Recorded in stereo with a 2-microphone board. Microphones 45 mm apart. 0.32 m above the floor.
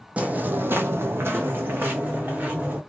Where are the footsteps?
35° right (ahead or behind), 0.7 m; by 2.8 s 40° right (ahead or behind), 1.5 m.